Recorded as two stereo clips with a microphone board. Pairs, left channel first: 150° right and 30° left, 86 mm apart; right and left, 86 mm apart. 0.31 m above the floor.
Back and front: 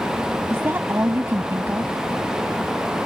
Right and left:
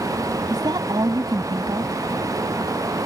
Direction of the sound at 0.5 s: 85° left.